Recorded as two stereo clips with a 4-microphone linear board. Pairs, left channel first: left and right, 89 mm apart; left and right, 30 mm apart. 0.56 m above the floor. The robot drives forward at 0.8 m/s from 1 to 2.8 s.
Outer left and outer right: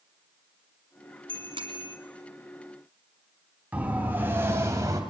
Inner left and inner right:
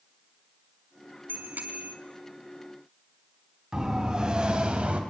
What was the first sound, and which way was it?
A bicycle bell, 70° right (ahead or behind).